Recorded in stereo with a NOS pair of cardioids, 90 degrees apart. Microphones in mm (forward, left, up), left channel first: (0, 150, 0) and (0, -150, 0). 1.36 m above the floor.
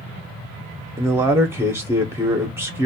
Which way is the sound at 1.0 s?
10° right.